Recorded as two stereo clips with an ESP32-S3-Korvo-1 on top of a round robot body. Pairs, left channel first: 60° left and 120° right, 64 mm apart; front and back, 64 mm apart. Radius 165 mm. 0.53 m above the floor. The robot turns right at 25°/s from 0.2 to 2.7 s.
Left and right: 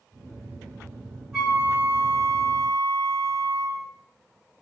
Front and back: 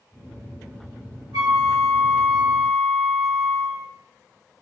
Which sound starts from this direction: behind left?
A flute, at 1.3 s.